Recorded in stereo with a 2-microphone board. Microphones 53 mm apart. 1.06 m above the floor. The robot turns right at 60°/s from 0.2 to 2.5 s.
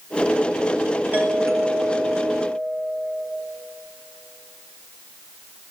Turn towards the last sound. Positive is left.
turn(degrees=-55)